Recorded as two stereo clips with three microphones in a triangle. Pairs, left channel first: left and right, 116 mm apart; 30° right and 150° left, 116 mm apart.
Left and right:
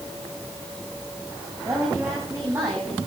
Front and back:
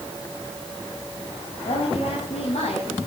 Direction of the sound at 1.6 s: 25° right.